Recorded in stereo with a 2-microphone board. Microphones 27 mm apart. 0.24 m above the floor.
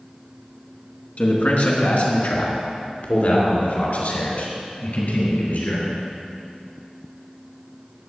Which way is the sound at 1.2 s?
55° left (ahead or behind).